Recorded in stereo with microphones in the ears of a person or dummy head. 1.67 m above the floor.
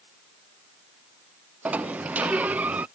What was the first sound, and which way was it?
A sliding door, 10° right (ahead or behind).